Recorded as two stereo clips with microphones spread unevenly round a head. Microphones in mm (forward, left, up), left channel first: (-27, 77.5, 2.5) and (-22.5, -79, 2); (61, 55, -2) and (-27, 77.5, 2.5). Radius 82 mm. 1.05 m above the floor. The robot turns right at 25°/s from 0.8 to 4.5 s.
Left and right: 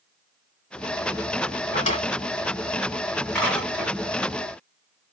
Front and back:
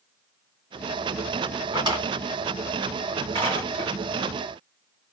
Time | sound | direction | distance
1.7 | a drawer | 135° left | 2 m